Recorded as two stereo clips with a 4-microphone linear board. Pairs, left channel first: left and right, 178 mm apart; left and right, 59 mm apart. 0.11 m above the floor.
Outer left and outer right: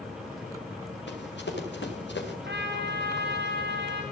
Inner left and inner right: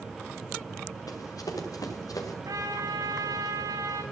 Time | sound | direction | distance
1.1 | running footsteps | 90° left | 5.5 m
2.5 | a trumpet | 70° right (ahead or behind) | 5 m